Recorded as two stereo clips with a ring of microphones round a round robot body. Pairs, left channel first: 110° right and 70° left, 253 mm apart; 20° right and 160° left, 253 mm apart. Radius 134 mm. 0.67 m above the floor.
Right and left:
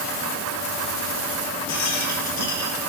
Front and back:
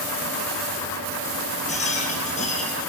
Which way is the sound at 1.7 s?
85° right.